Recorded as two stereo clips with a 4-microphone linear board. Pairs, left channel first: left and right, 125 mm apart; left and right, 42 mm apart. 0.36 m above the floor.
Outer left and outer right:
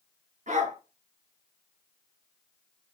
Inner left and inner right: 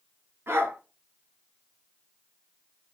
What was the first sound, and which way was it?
A dog barking, 80° right.